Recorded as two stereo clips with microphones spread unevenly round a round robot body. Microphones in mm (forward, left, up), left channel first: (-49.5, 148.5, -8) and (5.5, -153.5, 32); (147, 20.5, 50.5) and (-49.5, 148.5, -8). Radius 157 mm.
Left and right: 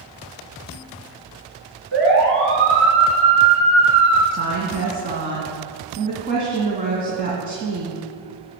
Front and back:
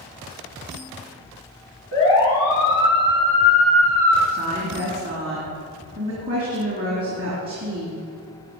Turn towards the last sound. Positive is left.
turn(degrees=-145)